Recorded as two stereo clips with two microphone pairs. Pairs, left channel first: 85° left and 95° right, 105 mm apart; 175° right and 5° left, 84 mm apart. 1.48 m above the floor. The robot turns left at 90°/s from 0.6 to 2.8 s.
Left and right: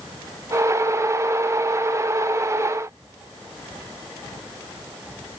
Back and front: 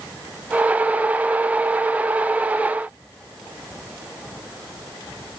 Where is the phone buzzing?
No phone buzzing in this recording.